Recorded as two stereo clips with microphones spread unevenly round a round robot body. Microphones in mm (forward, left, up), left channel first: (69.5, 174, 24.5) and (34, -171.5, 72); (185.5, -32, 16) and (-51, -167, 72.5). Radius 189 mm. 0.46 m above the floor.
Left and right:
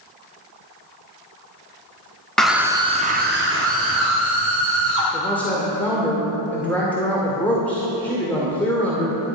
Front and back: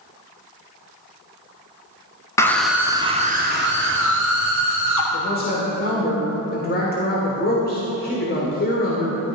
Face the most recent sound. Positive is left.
turn(degrees=5)